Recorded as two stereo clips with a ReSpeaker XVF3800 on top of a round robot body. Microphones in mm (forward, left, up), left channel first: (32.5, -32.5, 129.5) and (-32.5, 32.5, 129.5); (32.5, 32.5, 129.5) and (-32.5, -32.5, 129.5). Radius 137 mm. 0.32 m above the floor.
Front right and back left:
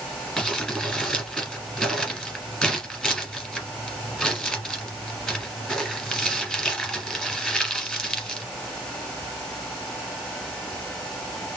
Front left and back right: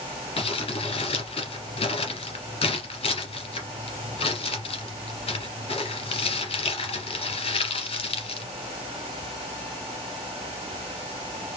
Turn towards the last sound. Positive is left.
turn(degrees=40)